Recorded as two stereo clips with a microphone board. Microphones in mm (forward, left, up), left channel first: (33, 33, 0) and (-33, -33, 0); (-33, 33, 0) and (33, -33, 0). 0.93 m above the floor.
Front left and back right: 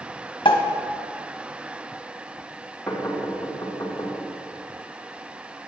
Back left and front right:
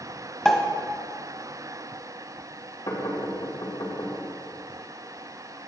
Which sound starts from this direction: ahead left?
A pop, at 0.5 s.